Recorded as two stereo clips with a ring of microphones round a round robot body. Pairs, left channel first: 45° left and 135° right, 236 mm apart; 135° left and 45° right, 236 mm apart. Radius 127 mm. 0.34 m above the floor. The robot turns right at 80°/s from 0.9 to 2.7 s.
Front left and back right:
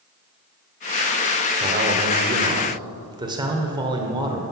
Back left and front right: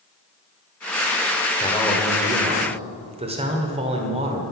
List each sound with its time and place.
1.6 s a man speaking: 170° right, 1.2 m; by 4.4 s 80° right, 1.2 m